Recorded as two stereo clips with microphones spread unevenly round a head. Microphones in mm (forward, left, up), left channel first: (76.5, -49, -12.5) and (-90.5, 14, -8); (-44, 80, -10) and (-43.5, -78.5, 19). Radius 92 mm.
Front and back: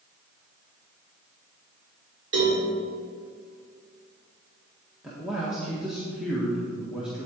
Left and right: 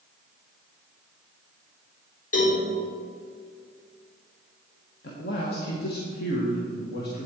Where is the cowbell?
125° left, 3.5 m.